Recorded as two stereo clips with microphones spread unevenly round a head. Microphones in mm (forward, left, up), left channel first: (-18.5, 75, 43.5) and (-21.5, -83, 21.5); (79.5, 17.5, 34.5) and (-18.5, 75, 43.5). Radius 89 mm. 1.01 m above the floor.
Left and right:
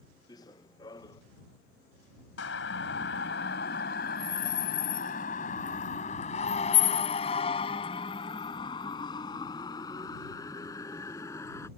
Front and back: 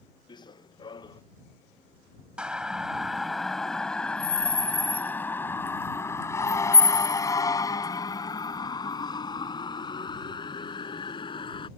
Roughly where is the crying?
I don't hear crying.